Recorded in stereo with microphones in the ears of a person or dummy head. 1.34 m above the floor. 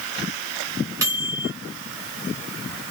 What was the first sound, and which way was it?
A microwave, 20° right (ahead or behind).